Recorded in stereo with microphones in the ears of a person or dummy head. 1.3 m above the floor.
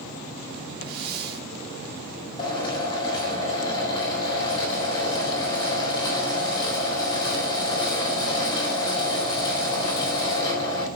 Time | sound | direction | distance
0.8 | a hiss | 55° right (ahead or behind) | 3 m
2.4 | a drill | 20° left (ahead or behind) | 4 m